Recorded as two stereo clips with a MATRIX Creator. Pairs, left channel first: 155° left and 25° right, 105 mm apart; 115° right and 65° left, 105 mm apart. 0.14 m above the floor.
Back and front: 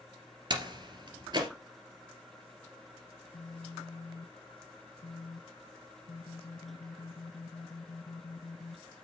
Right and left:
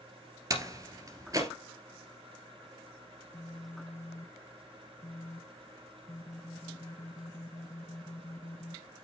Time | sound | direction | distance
0.5 | a door slam | 15° left | 2.5 m
3.2 | a phone buzzing | 175° right | 0.6 m